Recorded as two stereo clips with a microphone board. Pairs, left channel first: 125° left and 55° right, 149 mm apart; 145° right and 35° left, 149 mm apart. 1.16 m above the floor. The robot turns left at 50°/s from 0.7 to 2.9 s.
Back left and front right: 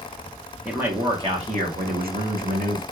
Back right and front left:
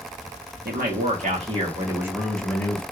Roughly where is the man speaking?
Ahead left.